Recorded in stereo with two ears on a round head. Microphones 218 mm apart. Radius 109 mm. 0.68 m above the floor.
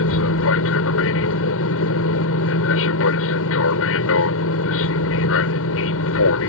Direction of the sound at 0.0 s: 60° left (ahead or behind).